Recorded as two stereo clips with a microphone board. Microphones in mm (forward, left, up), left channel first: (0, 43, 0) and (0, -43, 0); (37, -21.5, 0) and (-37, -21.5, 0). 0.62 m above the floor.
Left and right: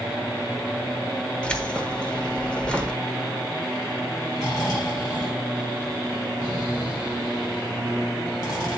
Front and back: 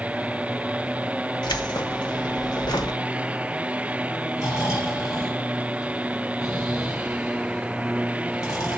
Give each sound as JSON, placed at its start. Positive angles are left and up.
{"t": 1.4, "sound": "keys jangling", "azimuth_deg": 10, "distance_m": 1.0}
{"t": 4.4, "sound": "snoring", "azimuth_deg": 45, "distance_m": 4.5}